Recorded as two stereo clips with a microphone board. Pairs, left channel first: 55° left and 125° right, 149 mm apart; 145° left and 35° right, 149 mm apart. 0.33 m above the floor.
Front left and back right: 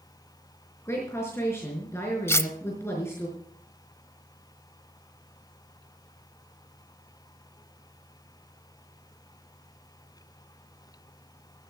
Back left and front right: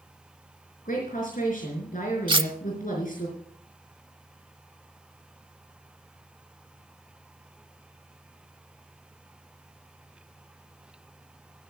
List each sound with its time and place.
0.8 s a woman speaking: 130° left, 4.5 m
2.3 s cutlery clinking: 5° right, 0.7 m